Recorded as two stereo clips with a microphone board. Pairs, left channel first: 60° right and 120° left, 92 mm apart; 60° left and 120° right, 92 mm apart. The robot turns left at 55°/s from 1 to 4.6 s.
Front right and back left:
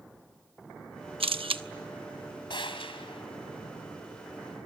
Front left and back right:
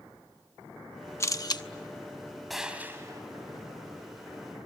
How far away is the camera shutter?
About 0.9 m.